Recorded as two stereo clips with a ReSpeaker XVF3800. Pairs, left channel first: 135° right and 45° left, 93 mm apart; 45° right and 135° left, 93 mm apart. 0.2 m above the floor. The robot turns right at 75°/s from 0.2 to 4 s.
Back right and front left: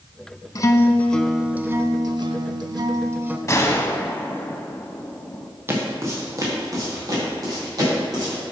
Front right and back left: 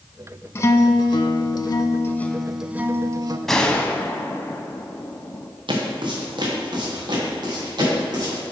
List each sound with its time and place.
0.6 s a guitar: 100° right, 0.5 m; by 3.4 s 115° left, 0.5 m
3.5 s a gunshot: 130° right, 0.7 m; by 5.5 s 90° right, 0.7 m
5.7 s footsteps: 110° left, 1.9 m; by 8.4 s 95° left, 6 m